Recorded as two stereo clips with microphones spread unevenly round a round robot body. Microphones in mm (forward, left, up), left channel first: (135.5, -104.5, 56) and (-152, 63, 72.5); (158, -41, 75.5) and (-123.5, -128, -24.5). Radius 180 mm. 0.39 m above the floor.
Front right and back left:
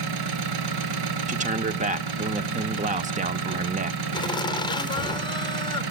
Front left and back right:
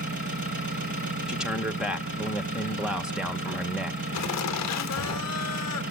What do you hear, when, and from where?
0.0 s an engine running: 130° left, 2 m
1.3 s a man speaking: straight behind, 0.8 m
4.1 s laughter: 35° left, 1.1 m